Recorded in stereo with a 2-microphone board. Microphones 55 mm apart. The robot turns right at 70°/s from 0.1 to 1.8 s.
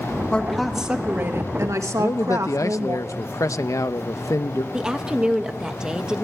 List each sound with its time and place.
0.3 s a woman speaking: 160° left, 2 m; by 3.0 s 95° right, 2 m
2.0 s a man speaking: 75° left (ahead or behind), 0.8 m
4.7 s a woman speaking: 15° right (ahead or behind), 1.4 m